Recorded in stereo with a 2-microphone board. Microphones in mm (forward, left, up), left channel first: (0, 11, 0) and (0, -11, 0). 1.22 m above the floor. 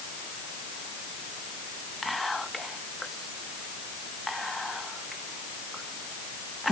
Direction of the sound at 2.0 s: 5° left (ahead or behind).